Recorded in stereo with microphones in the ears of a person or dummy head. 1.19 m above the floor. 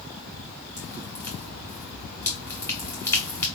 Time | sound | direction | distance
0.8 | dripping | 20° left (ahead or behind) | 1.6 m